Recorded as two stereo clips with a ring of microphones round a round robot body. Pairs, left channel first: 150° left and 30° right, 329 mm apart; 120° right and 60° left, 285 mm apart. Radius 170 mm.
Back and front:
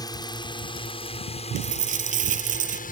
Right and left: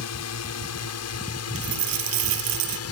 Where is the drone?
135° right; by 2.9 s 145° right.